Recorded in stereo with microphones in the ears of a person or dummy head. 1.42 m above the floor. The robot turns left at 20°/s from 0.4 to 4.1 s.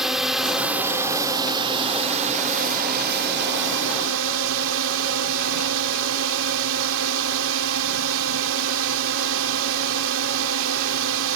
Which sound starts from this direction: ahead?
A drone, at 0.0 s.